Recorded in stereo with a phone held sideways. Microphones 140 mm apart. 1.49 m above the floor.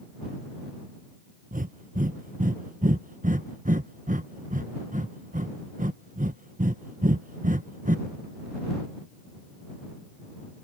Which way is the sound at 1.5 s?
70° right (ahead or behind).